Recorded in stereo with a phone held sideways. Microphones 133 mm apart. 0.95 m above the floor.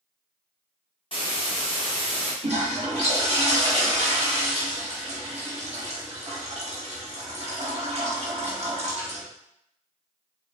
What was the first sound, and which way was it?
A hiss, 40° left (ahead or behind).